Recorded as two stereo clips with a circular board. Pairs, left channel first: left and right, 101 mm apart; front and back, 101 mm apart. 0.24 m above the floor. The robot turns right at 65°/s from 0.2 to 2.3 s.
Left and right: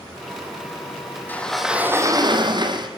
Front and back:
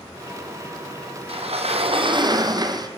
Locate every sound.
1.3 s a sliding door: 160° left, 3 m; by 2.9 s 130° right, 3 m